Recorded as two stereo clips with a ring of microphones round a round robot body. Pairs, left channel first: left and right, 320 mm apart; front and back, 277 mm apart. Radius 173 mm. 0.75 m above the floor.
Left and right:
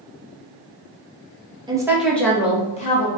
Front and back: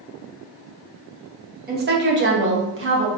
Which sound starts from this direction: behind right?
A woman speaking, at 1.7 s.